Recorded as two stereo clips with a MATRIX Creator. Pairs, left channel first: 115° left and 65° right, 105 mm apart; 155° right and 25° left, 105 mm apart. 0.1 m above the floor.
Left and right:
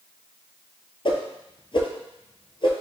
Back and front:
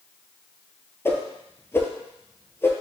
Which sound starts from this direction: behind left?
A whoosh, at 1.1 s.